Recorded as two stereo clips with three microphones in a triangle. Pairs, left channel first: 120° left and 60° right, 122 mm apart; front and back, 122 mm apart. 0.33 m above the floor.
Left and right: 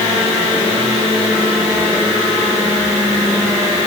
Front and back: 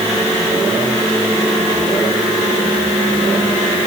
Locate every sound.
Only background noise.